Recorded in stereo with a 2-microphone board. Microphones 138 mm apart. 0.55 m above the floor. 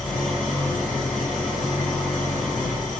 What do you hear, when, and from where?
0.0 s an engine running: centre (ahead or behind), 1.7 m